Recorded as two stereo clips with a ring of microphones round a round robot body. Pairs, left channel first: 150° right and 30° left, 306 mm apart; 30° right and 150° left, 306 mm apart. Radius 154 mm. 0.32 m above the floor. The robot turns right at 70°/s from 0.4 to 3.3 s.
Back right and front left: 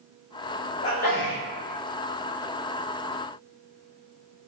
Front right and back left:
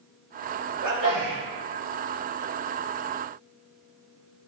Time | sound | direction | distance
0.8 | a sneeze | 155° left | 1.7 m